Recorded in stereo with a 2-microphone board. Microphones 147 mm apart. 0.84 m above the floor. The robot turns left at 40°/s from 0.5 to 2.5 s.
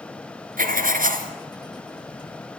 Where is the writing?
70° right (ahead or behind), 2.5 m.